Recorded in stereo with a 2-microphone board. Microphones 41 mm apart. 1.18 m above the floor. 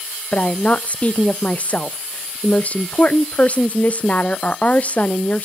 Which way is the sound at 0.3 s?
35° left (ahead or behind).